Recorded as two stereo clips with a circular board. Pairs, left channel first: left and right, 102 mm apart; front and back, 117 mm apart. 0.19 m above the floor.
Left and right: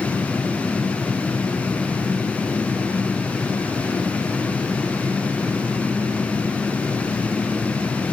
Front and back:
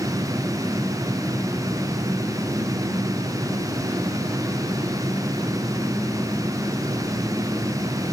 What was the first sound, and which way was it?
Only background noise.